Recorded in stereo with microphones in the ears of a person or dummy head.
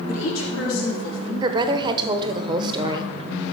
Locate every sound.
0.1 s a woman speaking: 85° left, 3.5 m; by 1.3 s 70° left (ahead or behind), 2.5 m
1.4 s a woman speaking: 25° right (ahead or behind), 1.0 m